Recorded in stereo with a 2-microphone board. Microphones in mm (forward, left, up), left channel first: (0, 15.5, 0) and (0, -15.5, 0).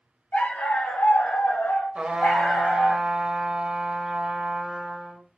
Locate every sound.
0.3 s a dog barking: 60° left (ahead or behind), 1.4 m; by 3.0 s 50° left (ahead or behind), 1.6 m
1.9 s a trumpet: 30° right (ahead or behind), 0.8 m